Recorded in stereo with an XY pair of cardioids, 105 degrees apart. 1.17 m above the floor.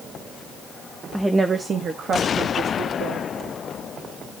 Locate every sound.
1.1 s a woman speaking: straight ahead, 1.0 m; by 3.3 s 70° right, 3 m